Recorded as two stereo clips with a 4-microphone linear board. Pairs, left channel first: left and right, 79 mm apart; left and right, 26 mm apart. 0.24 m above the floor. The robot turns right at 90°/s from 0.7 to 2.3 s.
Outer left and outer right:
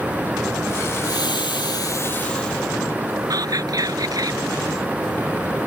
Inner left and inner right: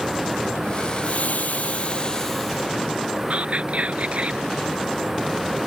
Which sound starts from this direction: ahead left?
Frying, at 1.0 s.